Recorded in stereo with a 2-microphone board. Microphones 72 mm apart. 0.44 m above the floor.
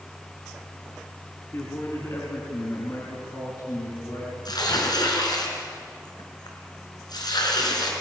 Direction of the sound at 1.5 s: 40° left (ahead or behind).